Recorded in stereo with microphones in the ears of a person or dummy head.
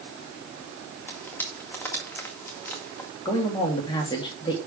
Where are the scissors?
No scissors in this recording.